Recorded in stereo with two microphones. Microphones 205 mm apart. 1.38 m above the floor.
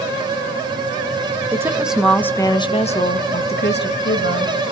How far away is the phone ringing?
No phone ringing in this recording.